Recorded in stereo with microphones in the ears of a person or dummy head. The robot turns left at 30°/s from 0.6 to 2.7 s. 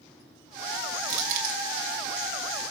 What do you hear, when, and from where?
1.0 s crushing: 45° right (ahead or behind), 4 m; by 1.6 s 60° right (ahead or behind), 4 m